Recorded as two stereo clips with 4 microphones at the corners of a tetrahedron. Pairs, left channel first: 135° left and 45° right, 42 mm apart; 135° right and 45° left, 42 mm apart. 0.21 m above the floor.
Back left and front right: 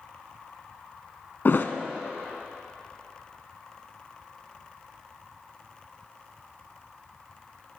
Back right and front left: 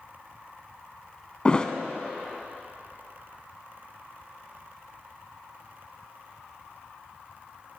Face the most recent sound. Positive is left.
turn(degrees=160)